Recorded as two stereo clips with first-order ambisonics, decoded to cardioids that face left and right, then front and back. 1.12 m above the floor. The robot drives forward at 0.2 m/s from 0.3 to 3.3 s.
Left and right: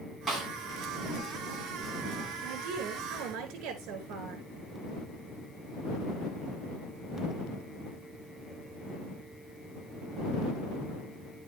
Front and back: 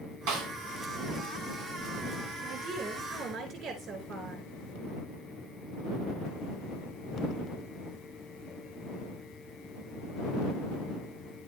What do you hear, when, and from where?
0.3 s a snare drum: 175° right, 8 m
2.4 s a woman speaking: 125° right, 5 m; by 4.5 s 130° right, 5 m